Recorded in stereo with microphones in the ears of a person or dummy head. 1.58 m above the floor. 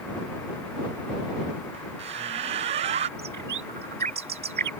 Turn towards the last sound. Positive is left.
turn(degrees=-40)  # may be behind; listen again after turning